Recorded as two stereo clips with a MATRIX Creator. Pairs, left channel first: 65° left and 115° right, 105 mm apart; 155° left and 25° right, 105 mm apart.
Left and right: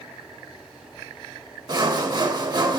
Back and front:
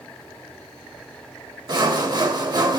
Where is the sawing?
70° right, 0.7 m.